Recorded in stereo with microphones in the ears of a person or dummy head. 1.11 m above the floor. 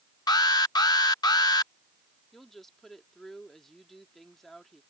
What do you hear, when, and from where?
0.3 s an alarm: 25° left (ahead or behind)
2.3 s a woman speaking: 5° left (ahead or behind)